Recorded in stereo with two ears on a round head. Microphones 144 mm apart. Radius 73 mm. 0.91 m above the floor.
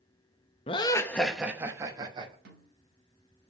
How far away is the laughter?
About 0.8 m.